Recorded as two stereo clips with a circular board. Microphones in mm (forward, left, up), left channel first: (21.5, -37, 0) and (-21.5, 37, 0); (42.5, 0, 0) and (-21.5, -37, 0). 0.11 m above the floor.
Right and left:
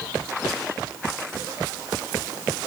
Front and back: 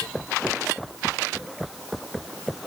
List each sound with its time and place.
Only background noise.